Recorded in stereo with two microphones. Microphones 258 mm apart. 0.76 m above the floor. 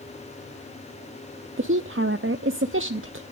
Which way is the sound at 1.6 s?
55° right (ahead or behind).